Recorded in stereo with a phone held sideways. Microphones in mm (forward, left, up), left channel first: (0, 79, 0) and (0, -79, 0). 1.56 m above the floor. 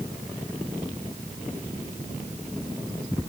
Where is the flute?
No flute in this recording.